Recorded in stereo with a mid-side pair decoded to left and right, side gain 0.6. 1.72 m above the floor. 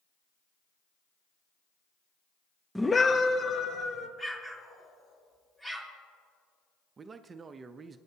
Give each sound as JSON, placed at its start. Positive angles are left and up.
{"t": 2.8, "sound": "a scream", "azimuth_deg": 0, "distance_m": 0.6}
{"t": 4.2, "sound": "an explosion", "azimuth_deg": 10, "distance_m": 2.5}
{"t": 7.0, "sound": "a man speaking", "azimuth_deg": -30, "distance_m": 0.6}